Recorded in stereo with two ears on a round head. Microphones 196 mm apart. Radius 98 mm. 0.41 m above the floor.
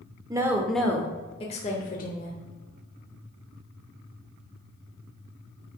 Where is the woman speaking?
15° right (ahead or behind), 0.8 m; by 2.3 s 50° left (ahead or behind), 1.2 m.